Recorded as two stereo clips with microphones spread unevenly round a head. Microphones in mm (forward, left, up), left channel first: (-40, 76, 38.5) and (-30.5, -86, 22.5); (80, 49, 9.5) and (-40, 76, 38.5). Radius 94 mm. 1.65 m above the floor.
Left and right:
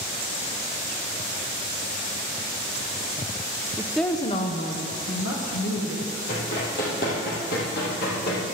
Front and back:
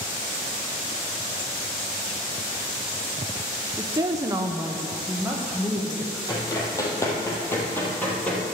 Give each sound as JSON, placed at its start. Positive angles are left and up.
{"t": 3.8, "sound": "a woman speaking", "azimuth_deg": -155, "distance_m": 0.6}
{"t": 6.3, "sound": "running footsteps", "azimuth_deg": 50, "distance_m": 3.5}